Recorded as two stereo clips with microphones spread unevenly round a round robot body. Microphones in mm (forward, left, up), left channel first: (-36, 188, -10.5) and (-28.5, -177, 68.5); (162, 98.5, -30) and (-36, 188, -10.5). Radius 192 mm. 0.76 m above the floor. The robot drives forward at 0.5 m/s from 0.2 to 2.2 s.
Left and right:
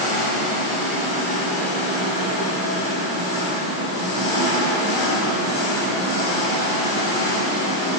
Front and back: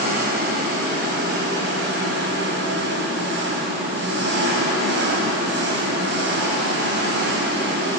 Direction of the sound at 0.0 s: 110° left.